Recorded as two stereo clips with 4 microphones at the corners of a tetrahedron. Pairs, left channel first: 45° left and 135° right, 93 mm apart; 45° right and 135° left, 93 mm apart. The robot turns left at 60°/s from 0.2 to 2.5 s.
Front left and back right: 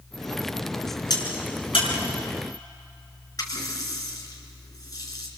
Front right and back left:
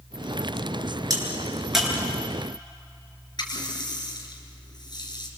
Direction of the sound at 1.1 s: 90° left.